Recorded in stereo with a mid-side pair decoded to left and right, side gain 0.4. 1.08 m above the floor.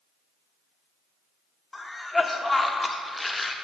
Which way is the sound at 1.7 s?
20° left.